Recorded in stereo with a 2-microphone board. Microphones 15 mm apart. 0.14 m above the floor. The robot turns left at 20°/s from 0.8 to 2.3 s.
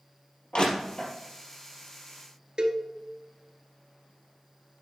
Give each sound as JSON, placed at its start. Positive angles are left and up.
{"t": 0.5, "sound": "crushing", "side_deg": 65, "distance_m": 3.5}
{"t": 2.6, "sound": "a cowbell", "side_deg": -55, "distance_m": 1.2}